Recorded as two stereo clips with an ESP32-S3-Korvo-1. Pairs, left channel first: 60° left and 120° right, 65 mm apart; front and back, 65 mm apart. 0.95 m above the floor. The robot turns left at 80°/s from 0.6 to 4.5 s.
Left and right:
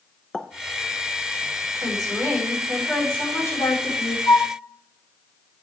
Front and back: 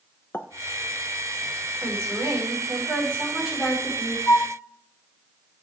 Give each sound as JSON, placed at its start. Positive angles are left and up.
{"t": 0.3, "sound": "a pop", "azimuth_deg": -15, "distance_m": 0.7}
{"t": 1.8, "sound": "a woman speaking", "azimuth_deg": -125, "distance_m": 6.5}
{"t": 4.3, "sound": "a flute", "azimuth_deg": 35, "distance_m": 0.5}